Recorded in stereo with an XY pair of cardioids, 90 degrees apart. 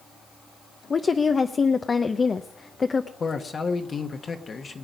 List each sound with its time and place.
0.9 s a woman speaking: 40° left, 0.8 m
3.2 s a man speaking: 45° left, 1.3 m